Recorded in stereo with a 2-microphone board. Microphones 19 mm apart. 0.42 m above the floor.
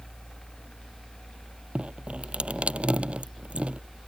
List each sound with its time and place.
1.8 s dripping: 70° right (ahead or behind)